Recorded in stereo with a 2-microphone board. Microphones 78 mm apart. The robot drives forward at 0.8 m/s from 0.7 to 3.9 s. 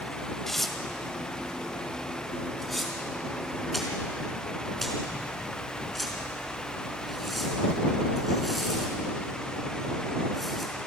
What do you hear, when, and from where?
0.5 s tearing paper: 5° left (ahead or behind), 1.7 m; by 10.7 s centre (ahead or behind), 4 m